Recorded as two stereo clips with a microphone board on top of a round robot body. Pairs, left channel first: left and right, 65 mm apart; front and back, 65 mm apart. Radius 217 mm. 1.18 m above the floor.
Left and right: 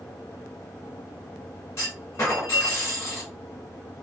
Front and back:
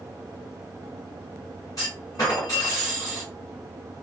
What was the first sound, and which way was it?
A clunk, 40° left.